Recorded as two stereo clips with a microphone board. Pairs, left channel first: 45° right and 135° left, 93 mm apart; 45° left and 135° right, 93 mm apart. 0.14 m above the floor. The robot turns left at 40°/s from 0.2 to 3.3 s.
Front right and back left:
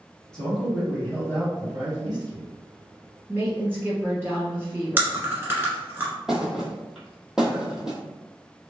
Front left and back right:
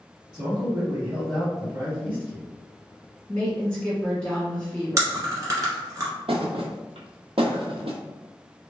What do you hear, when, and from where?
0.3 s a man speaking: 120° right, 1.7 m; by 2.5 s 150° left, 1.7 m
3.3 s a woman speaking: 110° left, 1.4 m
5.0 s chewing: 170° right, 1.2 m
6.3 s a thud: 140° right, 0.7 m